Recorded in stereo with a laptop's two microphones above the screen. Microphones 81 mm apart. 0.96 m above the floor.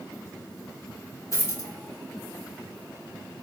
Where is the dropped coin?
40° left (ahead or behind), 0.8 m.